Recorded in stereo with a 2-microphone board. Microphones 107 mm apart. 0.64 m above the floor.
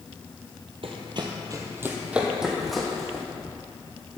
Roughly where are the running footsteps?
Right.